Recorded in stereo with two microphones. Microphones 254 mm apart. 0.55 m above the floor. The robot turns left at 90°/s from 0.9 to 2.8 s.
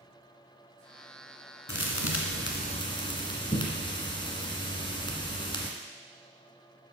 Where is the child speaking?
No child speaking in this recording.